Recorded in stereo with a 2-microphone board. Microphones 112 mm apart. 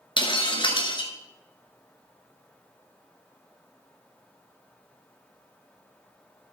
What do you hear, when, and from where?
0.2 s breaking glass: 45° left (ahead or behind), 1.9 m